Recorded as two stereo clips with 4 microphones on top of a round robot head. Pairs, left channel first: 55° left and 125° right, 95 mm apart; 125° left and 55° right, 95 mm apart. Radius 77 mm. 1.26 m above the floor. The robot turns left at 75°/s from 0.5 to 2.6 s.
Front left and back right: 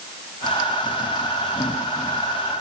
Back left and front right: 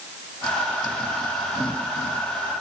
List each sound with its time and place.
Only background noise.